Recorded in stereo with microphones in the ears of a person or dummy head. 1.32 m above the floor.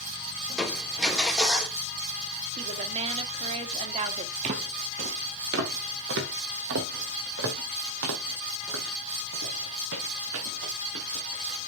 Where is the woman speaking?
35° right (ahead or behind), 2 m.